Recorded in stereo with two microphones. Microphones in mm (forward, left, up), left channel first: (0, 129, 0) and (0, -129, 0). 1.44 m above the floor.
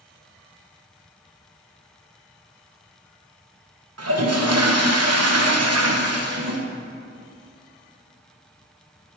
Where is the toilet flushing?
80° right, 1.1 m.